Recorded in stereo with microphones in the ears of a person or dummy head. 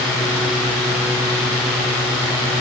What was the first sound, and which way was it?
Only background noise.